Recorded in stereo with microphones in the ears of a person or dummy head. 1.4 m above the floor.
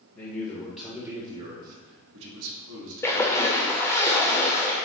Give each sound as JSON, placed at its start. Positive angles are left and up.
{"t": 0.1, "sound": "a man speaking", "side_deg": 20, "distance_m": 1.0}
{"t": 3.0, "sound": "a splash", "side_deg": 10, "distance_m": 0.6}